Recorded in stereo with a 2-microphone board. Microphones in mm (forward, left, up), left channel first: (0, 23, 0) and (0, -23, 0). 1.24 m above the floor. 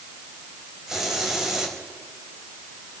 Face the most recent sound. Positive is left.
turn(degrees=-10)  # may be behind; listen again after turning